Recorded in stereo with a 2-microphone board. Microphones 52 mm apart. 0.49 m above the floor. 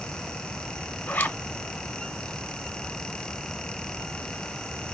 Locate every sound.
1.1 s a zipper: 35° left (ahead or behind), 0.7 m